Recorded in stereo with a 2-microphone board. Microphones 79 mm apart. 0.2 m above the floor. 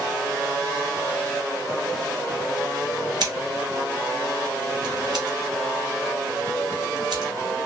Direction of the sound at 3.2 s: 65° right (ahead or behind).